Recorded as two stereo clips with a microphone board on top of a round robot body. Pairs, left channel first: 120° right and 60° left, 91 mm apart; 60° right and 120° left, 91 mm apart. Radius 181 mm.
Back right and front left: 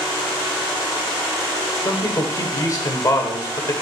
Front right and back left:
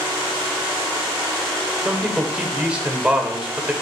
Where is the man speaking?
160° right, 1.9 m.